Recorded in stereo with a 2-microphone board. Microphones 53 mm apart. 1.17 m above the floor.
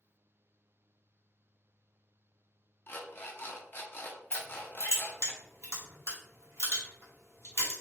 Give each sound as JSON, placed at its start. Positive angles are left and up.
{"t": 2.9, "sound": "an alarm clock", "side_deg": 40, "distance_m": 0.5}
{"t": 4.3, "sound": "crushing", "side_deg": -70, "distance_m": 1.4}